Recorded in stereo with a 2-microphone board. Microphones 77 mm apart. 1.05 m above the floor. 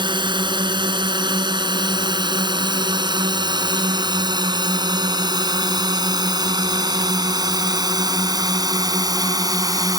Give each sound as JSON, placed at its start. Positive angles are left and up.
{"t": 0.0, "sound": "a drone", "side_deg": -75}